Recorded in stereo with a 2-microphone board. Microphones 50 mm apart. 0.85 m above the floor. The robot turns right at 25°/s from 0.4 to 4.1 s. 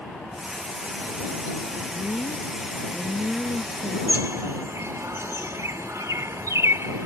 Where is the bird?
75° right (ahead or behind).